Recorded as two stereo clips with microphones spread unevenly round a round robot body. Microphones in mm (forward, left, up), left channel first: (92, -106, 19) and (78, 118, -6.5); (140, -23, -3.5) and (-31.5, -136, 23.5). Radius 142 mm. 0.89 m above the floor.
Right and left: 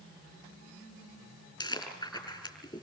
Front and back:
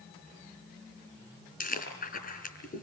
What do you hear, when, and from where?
1.6 s chewing: 15° right, 6.5 m